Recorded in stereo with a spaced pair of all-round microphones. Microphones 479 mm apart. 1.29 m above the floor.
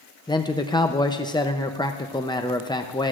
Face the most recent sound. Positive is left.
turn(degrees=10)  # may be behind; listen again after turning